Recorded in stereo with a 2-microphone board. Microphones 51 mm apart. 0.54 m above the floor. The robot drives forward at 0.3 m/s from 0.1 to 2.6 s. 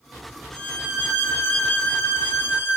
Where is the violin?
25° left (ahead or behind), 1.1 m; by 2.8 s 45° left (ahead or behind), 0.7 m.